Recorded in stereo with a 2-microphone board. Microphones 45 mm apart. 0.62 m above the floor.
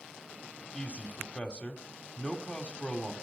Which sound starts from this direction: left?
A man speaking, at 0.7 s.